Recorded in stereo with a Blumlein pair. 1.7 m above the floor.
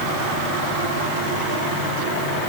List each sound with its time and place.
Only background noise.